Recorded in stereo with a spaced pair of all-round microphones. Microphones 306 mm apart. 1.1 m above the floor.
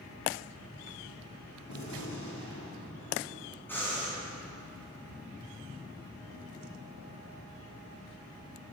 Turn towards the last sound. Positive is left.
turn(degrees=5)  # may be behind; listen again after turning